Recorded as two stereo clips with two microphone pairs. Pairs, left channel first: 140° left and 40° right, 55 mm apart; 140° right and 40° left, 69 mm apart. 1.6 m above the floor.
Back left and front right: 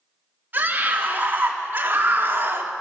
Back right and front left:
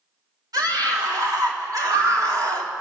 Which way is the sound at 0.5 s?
15° left.